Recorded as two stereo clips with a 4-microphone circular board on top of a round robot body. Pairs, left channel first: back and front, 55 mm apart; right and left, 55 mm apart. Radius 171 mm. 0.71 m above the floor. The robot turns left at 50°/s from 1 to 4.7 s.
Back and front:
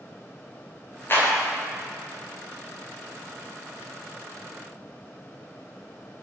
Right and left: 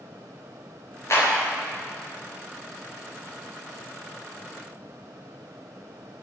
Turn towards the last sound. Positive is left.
turn(degrees=50)